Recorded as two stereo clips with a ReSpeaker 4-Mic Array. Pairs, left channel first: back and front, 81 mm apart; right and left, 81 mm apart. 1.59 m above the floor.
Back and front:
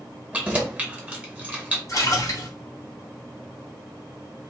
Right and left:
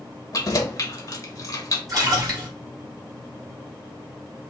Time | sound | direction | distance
0.3 | keys jangling | 65° right | 1.0 m
1.9 | a splash | 130° left | 2.0 m